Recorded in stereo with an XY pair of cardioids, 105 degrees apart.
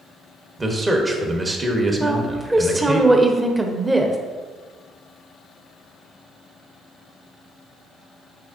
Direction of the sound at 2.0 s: 15° right.